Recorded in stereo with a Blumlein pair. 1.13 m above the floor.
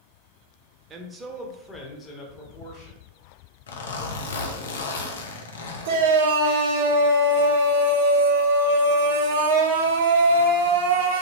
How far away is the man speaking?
About 0.6 m.